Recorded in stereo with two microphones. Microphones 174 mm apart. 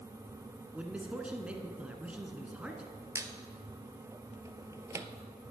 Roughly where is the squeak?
Centre.